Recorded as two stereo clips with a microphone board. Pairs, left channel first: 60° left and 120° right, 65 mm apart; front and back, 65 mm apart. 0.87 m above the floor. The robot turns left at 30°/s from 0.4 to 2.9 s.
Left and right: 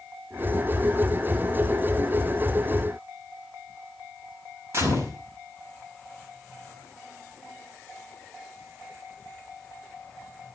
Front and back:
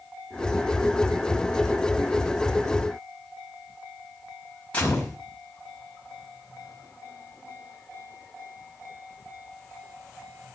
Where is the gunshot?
75° right, 6 m.